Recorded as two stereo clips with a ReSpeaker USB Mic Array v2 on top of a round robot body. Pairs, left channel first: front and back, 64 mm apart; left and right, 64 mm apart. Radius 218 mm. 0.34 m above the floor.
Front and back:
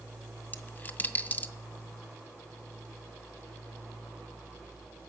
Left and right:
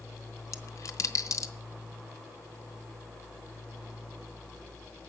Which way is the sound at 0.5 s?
60° left.